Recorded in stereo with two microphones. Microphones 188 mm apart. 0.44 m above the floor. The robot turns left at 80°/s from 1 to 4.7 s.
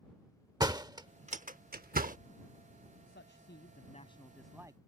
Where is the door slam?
20° right (ahead or behind); by 2.2 s 45° right (ahead or behind).